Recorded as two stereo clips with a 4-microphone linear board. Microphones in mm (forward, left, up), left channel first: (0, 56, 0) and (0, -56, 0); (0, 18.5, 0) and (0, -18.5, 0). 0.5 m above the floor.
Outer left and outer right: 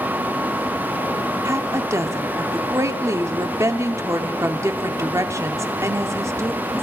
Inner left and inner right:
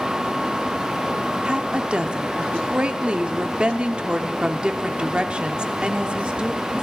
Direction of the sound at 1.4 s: 25° right (ahead or behind).